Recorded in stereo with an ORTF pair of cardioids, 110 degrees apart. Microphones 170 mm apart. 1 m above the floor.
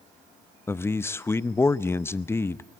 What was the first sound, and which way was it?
A man speaking, 15° left.